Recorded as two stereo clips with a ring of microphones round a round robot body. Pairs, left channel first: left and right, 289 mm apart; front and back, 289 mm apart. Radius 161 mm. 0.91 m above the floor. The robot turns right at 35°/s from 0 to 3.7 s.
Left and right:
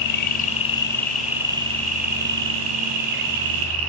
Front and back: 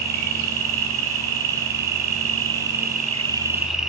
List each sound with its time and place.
0.0 s an insect: 140° left, 3.5 m; by 3.9 s 90° right, 3.5 m